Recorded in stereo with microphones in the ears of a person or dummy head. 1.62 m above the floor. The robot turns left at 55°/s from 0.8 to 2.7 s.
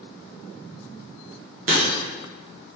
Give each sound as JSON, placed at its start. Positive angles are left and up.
{"t": 1.7, "sound": "breaking glass", "side_deg": -45, "distance_m": 0.9}